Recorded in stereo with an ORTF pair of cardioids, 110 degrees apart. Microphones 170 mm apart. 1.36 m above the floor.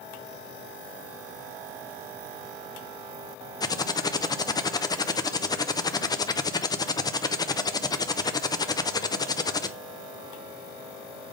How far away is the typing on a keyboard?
About 0.7 m.